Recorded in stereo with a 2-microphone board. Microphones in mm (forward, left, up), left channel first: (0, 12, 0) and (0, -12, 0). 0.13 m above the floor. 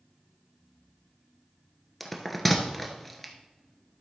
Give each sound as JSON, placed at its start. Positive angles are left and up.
{"t": 2.0, "sound": "a bell", "side_deg": 5, "distance_m": 1.1}